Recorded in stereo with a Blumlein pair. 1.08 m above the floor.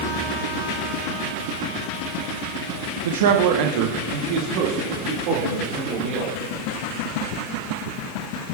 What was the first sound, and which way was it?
A man speaking, 55° right.